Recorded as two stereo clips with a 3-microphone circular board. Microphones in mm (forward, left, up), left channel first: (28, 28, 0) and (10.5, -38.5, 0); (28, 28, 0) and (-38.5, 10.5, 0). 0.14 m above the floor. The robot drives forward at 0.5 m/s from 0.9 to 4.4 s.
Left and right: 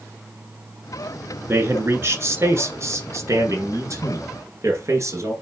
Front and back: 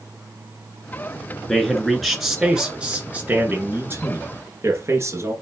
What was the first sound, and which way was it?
A man speaking, 65° right.